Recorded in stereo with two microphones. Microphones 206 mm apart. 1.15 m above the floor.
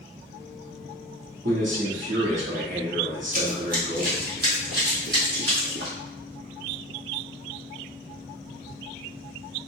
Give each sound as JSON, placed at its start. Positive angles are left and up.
{"t": 1.4, "sound": "a man speaking", "side_deg": -75, "distance_m": 1.9}
{"t": 3.3, "sound": "running footsteps", "side_deg": -40, "distance_m": 1.7}